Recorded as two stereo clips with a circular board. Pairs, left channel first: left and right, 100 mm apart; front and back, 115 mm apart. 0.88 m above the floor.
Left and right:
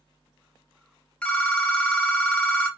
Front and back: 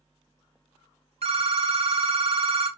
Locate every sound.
1.2 s a phone ringing: 165° left, 0.6 m